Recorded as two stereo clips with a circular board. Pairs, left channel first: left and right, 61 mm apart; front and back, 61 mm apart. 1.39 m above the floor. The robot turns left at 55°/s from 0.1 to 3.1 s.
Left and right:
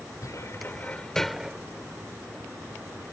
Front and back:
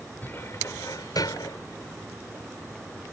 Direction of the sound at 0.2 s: 60° left.